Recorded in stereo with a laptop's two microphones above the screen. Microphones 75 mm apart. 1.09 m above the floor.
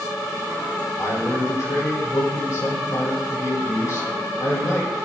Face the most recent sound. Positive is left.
turn(degrees=50)  # may be behind; listen again after turning